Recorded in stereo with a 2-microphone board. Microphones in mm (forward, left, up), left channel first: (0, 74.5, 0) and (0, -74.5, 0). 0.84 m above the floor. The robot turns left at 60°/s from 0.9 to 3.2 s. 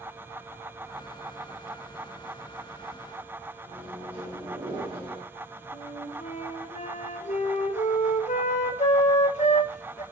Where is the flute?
55° left (ahead or behind), 1.2 m.